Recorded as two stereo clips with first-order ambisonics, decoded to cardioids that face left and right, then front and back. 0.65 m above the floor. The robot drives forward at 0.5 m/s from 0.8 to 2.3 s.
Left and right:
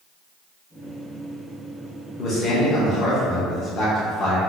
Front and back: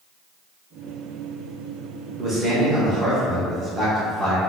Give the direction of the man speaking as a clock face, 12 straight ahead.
8 o'clock.